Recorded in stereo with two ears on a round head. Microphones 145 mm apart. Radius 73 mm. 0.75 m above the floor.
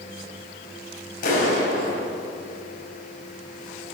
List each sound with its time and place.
1.2 s a clap: 55° left (ahead or behind), 5 m